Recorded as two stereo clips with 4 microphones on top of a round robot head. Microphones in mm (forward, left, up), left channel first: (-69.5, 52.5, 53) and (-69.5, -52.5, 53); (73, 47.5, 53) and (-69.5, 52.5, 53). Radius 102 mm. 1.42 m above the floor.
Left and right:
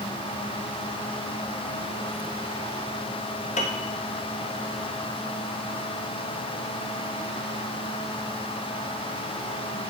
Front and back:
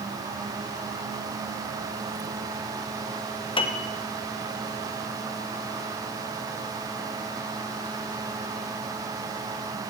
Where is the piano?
55° left, 0.9 m.